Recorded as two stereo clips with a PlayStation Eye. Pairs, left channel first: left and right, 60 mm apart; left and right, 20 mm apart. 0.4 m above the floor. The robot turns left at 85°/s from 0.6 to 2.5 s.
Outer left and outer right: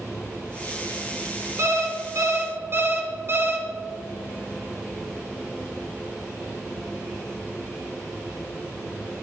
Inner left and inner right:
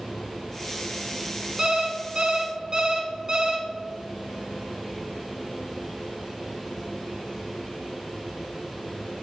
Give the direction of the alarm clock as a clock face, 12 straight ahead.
2 o'clock.